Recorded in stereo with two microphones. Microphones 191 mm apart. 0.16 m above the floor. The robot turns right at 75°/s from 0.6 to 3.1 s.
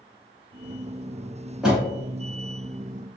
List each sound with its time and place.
1.6 s a door slam: centre (ahead or behind), 1.0 m; by 1.8 s 15° right (ahead or behind), 1.0 m